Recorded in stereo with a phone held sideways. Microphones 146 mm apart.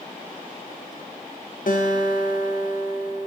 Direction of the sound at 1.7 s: 65° left (ahead or behind).